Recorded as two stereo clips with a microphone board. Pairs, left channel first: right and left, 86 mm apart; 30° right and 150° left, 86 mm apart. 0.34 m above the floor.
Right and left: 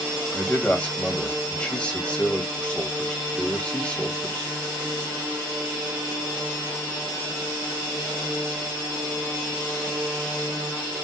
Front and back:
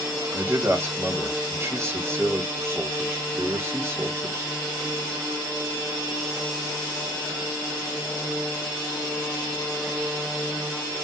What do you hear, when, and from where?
0.3 s a man speaking: 165° right, 1.9 m